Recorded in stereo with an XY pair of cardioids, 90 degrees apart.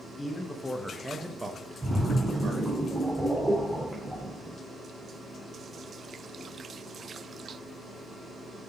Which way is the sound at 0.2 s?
30° left.